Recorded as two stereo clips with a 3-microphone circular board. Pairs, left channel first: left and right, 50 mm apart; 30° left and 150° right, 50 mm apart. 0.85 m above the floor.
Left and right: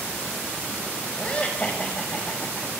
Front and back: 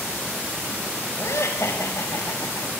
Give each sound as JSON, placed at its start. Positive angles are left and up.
{"t": 1.2, "sound": "laughter", "azimuth_deg": 25, "distance_m": 4.5}